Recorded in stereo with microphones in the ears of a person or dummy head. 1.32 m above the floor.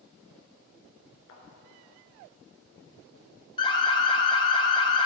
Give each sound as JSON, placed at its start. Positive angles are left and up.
{"t": 1.3, "sound": "a thud", "side_deg": 60, "distance_m": 3.0}
{"t": 3.6, "sound": "an alarm", "side_deg": 20, "distance_m": 1.2}